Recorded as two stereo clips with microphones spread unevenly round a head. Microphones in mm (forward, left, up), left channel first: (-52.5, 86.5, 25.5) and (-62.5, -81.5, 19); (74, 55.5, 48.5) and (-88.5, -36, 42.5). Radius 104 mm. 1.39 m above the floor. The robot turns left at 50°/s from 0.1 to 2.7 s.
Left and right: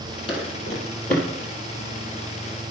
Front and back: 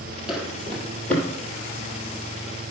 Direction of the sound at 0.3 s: 125° left.